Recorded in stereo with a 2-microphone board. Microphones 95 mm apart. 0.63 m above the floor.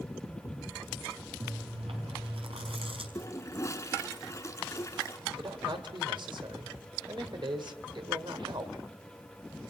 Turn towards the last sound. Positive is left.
turn(degrees=-60)  # may be behind; listen again after turning